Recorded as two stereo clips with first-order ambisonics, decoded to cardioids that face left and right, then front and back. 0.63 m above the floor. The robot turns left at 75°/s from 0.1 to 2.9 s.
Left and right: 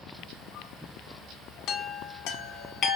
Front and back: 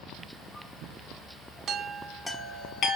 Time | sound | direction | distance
1.7 | a chime | 130° left | 0.6 m